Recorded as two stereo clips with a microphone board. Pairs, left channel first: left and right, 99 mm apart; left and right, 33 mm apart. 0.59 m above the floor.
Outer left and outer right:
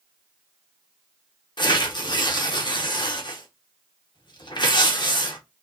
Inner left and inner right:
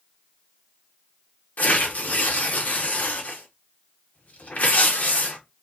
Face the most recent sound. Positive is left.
turn(degrees=55)  # may be behind; listen again after turning